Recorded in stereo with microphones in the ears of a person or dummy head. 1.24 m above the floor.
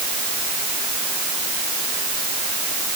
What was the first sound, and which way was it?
Only background noise.